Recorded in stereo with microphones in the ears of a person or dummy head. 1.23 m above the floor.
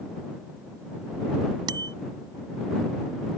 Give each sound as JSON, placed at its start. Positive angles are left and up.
{"t": 1.7, "sound": "a bicycle bell", "side_deg": -25}